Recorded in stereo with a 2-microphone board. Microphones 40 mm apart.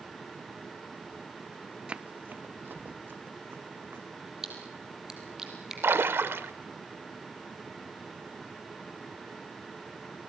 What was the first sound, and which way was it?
Running footsteps, 25° right (ahead or behind).